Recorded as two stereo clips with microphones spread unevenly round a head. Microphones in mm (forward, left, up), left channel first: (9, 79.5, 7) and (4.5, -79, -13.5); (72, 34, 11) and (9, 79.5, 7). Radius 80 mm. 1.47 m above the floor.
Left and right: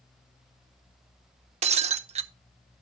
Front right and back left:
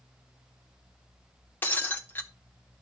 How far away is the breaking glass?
About 0.6 m.